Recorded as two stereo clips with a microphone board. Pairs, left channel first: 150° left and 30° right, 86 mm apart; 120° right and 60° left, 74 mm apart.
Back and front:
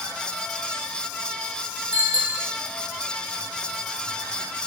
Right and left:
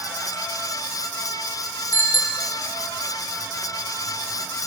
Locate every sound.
1.9 s a bicycle bell: 55° right, 4.5 m